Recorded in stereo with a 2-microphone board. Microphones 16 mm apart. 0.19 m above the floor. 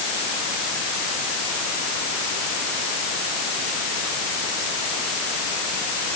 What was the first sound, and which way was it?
Only background noise.